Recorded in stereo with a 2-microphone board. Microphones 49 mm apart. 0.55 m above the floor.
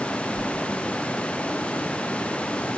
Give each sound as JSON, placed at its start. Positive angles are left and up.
{"t": 0.4, "sound": "a whoosh", "side_deg": -20, "distance_m": 4.5}